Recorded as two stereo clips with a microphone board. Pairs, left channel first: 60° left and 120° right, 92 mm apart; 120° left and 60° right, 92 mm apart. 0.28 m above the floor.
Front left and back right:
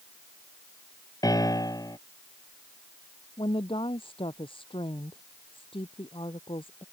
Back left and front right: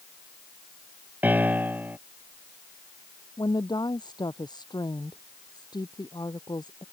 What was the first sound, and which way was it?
A piano, 10° left.